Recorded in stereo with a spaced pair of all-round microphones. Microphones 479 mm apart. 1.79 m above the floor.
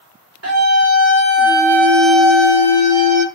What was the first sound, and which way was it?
A scream, 30° right (ahead or behind).